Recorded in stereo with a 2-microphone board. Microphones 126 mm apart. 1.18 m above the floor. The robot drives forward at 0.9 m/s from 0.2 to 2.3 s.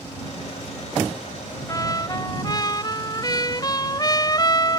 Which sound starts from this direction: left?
A trumpet, at 1.7 s.